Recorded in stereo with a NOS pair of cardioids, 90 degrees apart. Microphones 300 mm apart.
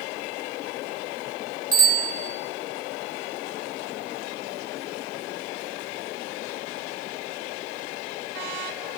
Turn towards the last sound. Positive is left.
turn(degrees=-50)